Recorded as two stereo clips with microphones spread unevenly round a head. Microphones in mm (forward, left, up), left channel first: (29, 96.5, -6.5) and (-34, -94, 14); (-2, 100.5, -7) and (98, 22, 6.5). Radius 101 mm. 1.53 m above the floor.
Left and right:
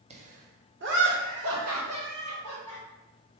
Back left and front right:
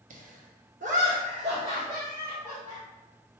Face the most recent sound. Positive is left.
turn(degrees=-120)